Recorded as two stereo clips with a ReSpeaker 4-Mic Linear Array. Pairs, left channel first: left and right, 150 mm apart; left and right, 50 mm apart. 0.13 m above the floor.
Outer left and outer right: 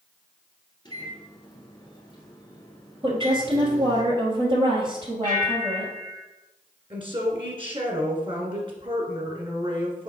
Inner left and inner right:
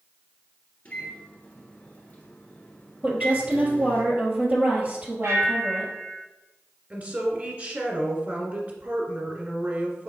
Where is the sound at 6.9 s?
35° right (ahead or behind), 1.6 m.